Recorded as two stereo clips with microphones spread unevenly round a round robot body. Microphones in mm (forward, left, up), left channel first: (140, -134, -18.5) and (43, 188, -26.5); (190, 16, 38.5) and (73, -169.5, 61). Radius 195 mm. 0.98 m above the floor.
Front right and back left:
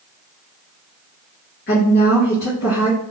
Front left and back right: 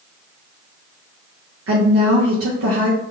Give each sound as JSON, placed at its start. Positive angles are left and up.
{"t": 1.7, "sound": "a woman speaking", "azimuth_deg": -135, "distance_m": 0.7}